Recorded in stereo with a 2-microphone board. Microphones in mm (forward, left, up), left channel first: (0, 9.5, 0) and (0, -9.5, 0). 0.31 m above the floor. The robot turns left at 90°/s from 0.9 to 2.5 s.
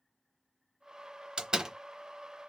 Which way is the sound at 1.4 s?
50° right (ahead or behind).